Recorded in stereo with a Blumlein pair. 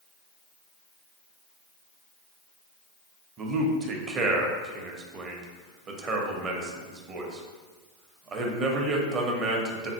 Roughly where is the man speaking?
Ahead right.